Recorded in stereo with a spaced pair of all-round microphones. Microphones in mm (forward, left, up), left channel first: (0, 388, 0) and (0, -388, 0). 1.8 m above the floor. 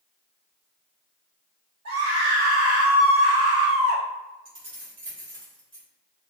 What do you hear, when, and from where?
1.9 s a scream: 60° right (ahead or behind), 1.8 m
4.5 s keys jangling: 55° right (ahead or behind), 1.3 m